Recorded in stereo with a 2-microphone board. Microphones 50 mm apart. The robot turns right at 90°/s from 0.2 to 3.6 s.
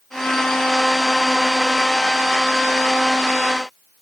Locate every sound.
Only background noise.